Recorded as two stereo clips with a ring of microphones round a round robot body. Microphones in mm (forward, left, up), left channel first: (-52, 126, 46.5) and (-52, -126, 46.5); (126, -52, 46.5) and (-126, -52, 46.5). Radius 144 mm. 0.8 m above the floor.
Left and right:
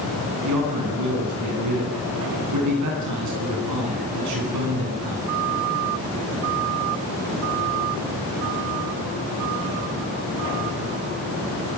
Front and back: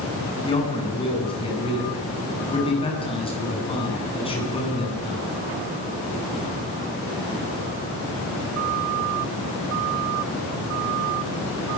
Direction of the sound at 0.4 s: 70° right.